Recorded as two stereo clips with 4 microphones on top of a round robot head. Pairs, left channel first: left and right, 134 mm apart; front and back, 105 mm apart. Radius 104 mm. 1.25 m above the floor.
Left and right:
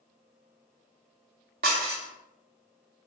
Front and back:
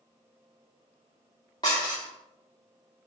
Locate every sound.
1.6 s dishes clattering: 70° right, 0.5 m